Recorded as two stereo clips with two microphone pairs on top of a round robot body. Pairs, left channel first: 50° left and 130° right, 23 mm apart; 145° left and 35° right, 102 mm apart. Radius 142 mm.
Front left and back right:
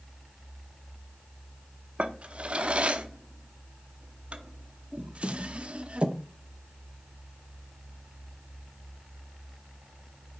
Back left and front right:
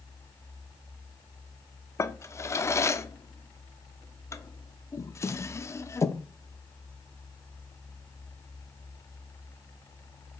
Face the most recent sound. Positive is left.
turn(degrees=-155)